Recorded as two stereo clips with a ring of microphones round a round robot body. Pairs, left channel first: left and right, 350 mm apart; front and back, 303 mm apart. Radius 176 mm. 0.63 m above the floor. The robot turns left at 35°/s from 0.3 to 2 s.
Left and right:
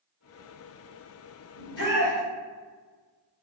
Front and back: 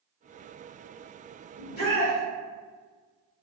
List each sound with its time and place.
1.6 s a shout: 70° left, 1.8 m; by 2.2 s 55° left, 1.8 m